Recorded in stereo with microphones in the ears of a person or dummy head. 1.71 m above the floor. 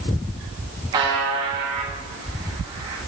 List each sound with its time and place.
0.9 s a buzzer: 25° right (ahead or behind), 1.4 m